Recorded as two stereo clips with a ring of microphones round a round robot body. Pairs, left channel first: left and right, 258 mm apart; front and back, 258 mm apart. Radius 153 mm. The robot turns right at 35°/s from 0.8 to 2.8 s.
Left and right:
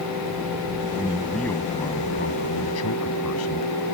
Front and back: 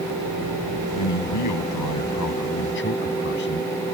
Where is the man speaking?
10° right; by 3.7 s 55° left.